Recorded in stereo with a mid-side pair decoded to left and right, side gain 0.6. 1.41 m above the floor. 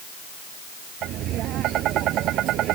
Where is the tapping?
60° right.